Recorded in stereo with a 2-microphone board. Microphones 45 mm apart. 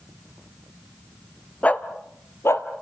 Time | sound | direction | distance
1.6 | a dog barking | 30° left (ahead or behind) | 1.2 m